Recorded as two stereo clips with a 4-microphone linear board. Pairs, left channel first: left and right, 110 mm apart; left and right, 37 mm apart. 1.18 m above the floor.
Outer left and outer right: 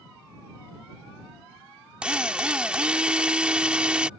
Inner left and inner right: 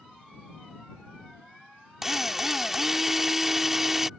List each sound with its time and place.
2.0 s a drill: 10° right (ahead or behind)